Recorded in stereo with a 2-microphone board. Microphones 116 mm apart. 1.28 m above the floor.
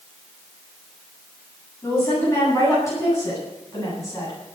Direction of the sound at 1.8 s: 20° left (ahead or behind).